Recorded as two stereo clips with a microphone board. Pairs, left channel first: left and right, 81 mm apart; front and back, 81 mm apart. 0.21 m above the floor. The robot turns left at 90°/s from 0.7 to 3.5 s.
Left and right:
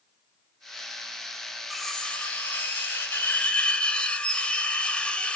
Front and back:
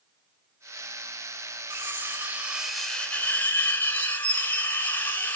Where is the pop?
I don't hear a pop.